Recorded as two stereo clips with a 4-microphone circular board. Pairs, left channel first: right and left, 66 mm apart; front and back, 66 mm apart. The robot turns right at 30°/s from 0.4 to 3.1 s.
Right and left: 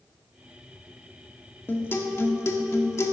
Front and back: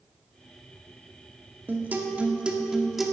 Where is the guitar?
135° right, 1.2 m; by 3.1 s 90° right, 1.2 m.